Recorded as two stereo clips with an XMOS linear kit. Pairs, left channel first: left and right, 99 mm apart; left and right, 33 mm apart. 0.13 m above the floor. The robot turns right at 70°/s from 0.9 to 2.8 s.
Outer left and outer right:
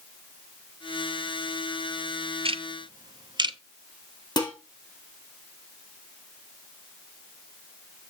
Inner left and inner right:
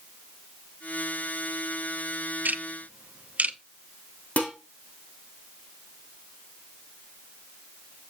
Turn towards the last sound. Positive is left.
turn(degrees=45)  # may be behind; listen again after turning